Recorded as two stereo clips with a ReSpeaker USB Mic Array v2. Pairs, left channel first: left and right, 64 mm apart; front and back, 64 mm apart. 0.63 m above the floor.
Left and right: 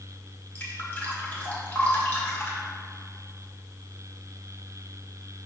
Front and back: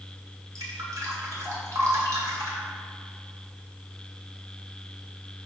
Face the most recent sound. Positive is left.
turn(degrees=150)